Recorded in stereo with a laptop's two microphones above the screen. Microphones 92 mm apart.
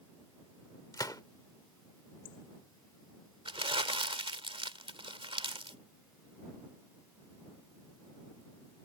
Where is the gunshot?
45° left (ahead or behind).